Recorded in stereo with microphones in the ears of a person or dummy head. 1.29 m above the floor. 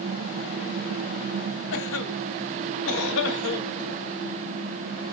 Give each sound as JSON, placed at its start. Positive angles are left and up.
{"t": 1.7, "sound": "a cough", "side_deg": 80, "distance_m": 1.0}